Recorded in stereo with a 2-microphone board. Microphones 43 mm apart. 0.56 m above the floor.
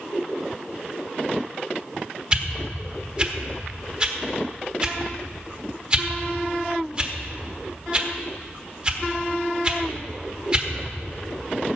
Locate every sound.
2.3 s a whoosh: 25° right (ahead or behind), 1.2 m